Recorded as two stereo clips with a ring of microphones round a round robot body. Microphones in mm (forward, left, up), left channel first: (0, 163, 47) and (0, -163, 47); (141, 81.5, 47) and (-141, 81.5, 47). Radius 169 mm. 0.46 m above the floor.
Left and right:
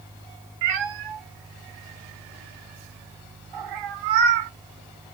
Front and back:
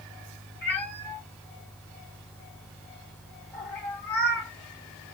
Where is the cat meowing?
85° right, 0.9 m.